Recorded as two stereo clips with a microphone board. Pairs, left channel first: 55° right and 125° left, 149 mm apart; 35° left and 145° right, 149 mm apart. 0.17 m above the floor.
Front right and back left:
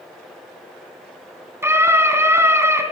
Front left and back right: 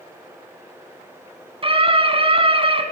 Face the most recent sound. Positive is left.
turn(degrees=-170)